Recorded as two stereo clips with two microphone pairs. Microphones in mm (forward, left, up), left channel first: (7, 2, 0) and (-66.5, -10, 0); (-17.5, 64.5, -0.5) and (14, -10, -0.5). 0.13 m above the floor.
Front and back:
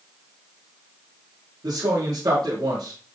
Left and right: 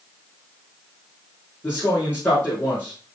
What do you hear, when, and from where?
1.6 s a man speaking: 175° left, 3.5 m